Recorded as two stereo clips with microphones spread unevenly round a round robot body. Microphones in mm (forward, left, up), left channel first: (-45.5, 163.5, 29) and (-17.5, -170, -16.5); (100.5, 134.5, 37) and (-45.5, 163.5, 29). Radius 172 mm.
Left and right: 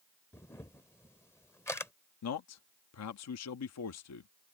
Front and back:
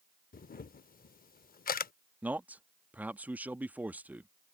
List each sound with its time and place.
0.3 s a camera shutter: 10° left
2.2 s a man speaking: 100° left